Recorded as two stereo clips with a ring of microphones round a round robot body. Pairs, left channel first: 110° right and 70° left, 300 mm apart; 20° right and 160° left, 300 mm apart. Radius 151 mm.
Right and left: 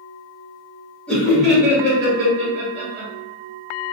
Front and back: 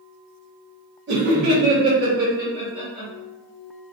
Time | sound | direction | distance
1.1 | laughter | 165° left | 1.2 m